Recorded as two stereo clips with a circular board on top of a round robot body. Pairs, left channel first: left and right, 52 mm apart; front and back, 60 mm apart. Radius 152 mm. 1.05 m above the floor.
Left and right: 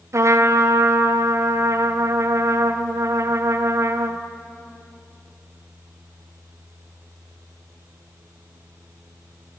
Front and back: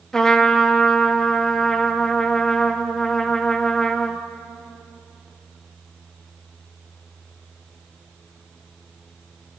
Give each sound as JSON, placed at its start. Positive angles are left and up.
{"t": 0.1, "sound": "a trumpet", "azimuth_deg": -80, "distance_m": 0.6}